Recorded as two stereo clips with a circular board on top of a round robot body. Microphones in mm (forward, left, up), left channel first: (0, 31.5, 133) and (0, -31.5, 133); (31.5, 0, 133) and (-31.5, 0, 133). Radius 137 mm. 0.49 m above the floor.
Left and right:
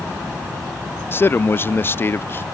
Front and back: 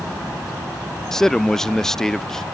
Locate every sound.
1.1 s a man speaking: 80° left